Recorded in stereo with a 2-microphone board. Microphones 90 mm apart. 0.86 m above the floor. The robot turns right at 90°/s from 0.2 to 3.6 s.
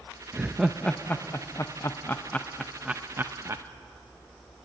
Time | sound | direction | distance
0.3 | laughter | 15° right (ahead or behind) | 0.6 m